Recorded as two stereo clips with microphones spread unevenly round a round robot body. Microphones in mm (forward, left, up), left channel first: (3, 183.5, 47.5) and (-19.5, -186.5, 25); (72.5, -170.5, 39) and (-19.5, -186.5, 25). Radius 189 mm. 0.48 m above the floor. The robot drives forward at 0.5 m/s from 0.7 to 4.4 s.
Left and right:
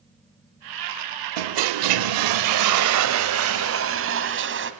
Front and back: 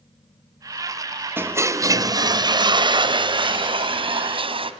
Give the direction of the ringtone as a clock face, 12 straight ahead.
I don't hear a ringtone.